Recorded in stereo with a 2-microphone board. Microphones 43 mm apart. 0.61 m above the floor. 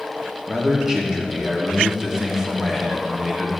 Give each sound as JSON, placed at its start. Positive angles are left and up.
{"t": 0.5, "sound": "a man speaking", "side_deg": -10, "distance_m": 1.4}